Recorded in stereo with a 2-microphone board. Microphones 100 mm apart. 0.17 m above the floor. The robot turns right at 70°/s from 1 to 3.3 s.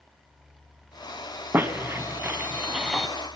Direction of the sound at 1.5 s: 25° right (ahead or behind).